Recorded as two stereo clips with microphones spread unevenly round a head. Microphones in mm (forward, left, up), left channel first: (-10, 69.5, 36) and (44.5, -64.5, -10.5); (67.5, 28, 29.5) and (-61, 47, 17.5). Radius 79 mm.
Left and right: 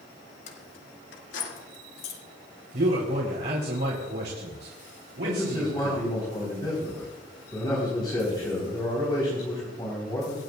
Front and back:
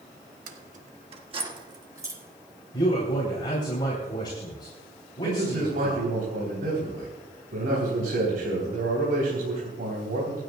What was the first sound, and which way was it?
Keys jangling, 160° left.